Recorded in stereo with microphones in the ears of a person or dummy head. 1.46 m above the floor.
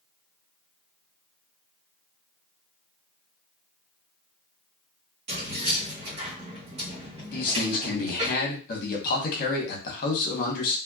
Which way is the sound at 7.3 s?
55° left (ahead or behind).